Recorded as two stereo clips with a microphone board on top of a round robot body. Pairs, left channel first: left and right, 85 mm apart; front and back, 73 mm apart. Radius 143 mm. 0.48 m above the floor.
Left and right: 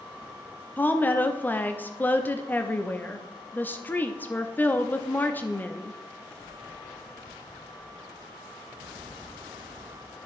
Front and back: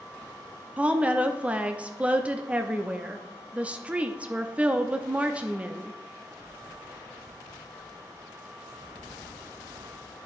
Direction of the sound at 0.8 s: 130° left.